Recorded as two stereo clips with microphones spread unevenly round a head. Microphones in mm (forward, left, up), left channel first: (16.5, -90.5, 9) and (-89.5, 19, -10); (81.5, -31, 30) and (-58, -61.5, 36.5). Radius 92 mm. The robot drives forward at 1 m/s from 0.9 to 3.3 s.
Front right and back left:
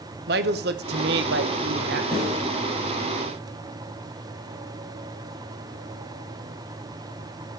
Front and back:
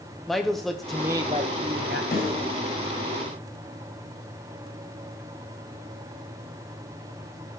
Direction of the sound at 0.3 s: 105° left.